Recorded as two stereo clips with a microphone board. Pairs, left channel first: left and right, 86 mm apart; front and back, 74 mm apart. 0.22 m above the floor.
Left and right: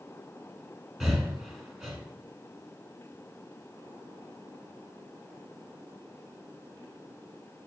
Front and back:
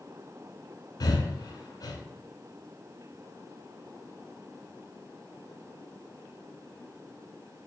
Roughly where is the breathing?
Ahead.